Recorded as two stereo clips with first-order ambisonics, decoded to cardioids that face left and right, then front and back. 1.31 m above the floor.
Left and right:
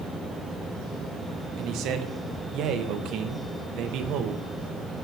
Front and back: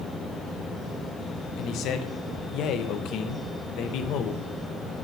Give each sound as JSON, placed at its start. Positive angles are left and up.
{"t": 1.6, "sound": "a man speaking", "azimuth_deg": -45, "distance_m": 0.8}